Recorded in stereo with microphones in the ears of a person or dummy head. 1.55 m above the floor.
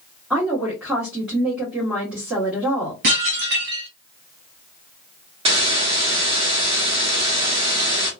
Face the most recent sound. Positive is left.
turn(degrees=-35)  # may be behind; listen again after turning